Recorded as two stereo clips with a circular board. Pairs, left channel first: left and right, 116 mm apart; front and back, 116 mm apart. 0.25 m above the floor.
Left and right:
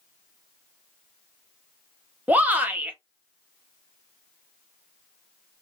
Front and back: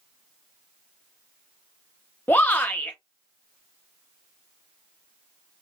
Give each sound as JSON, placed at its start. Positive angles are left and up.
{"t": 2.3, "sound": "a shout", "azimuth_deg": -45, "distance_m": 1.0}